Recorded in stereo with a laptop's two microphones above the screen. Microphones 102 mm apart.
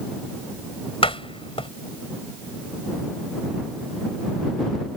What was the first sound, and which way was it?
A door slam, 85° left.